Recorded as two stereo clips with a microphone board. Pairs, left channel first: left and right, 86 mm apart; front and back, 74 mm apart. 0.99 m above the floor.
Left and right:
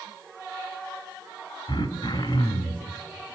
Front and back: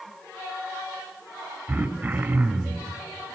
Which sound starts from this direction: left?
Throat clearing, at 1.7 s.